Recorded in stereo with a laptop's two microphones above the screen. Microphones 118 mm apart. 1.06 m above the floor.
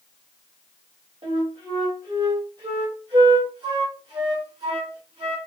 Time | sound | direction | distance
1.2 | a flute | 45° right (ahead or behind) | 1.8 m